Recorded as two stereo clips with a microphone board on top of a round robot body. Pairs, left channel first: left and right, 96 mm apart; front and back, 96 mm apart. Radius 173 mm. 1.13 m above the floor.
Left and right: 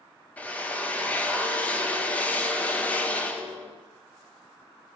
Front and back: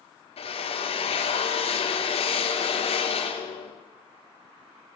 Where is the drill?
15° left, 2.5 m.